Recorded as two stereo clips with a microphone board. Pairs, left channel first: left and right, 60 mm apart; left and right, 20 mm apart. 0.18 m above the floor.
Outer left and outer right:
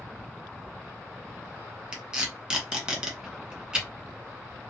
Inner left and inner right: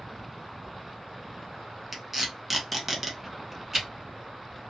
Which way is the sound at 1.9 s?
15° right (ahead or behind).